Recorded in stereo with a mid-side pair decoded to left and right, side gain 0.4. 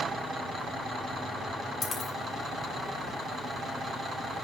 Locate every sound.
1.8 s a dropped coin: 45° left, 3 m